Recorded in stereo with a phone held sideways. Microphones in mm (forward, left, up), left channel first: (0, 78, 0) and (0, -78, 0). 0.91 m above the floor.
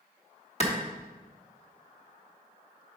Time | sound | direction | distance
0.6 | a clap | 40° left (ahead or behind) | 1.5 m